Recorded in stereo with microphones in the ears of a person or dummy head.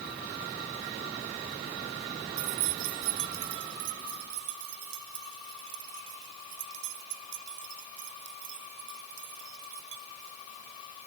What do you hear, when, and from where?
2.4 s keys jangling: 65° right (ahead or behind); by 10.4 s 70° right (ahead or behind)